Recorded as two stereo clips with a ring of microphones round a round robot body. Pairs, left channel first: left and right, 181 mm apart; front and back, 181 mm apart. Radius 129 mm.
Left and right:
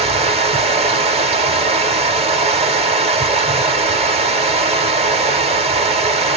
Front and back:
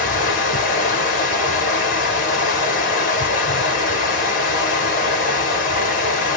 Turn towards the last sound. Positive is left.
turn(degrees=-40)